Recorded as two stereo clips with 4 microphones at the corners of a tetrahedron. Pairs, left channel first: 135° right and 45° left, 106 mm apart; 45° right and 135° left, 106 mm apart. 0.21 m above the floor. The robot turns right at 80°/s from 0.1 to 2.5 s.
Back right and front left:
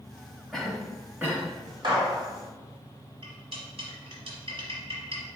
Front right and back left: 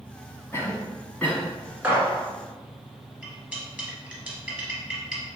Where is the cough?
50° right, 1.0 m; by 1.5 s 25° left, 1.0 m.